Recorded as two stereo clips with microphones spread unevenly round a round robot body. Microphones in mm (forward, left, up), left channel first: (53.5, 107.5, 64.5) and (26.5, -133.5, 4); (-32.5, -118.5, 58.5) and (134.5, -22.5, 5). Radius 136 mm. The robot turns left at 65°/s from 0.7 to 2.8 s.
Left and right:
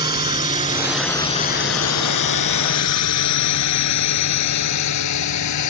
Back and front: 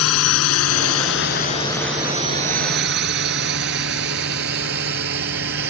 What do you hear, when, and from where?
0.0 s a drone: 170° right; by 5.7 s 70° left